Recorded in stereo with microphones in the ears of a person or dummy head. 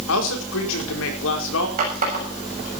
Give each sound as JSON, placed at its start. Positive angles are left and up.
{"t": 0.1, "sound": "a man speaking", "side_deg": 75, "distance_m": 4.5}
{"t": 1.8, "sound": "a running tap", "side_deg": -40, "distance_m": 6.5}